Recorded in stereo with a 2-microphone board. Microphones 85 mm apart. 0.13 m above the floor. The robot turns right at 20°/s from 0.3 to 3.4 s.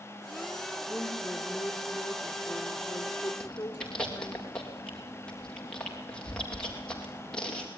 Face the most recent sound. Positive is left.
turn(degrees=10)  # may be behind; listen again after turning